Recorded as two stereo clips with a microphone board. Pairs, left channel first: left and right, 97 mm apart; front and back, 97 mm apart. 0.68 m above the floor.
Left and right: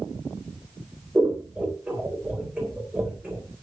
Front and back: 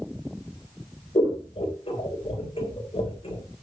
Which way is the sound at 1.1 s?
15° right.